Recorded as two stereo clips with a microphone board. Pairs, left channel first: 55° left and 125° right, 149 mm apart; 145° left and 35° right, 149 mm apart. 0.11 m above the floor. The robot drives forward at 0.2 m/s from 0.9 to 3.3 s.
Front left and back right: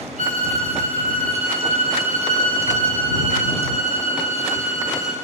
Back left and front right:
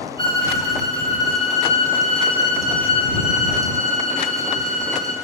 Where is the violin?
155° right, 1.4 m; by 5.1 s 160° right, 1.9 m.